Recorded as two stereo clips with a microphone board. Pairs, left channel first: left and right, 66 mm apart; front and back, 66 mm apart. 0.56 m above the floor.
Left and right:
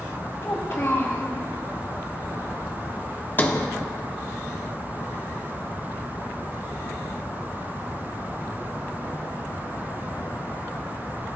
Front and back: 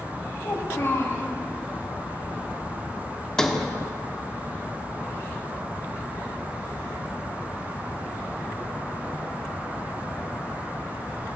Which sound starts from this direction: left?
A sliding door, at 3.4 s.